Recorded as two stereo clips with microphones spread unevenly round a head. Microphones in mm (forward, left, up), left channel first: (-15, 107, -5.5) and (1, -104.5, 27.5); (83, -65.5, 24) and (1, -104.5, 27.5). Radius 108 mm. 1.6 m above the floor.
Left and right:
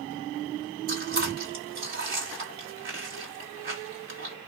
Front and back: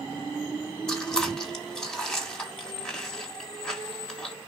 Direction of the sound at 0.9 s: 55° right.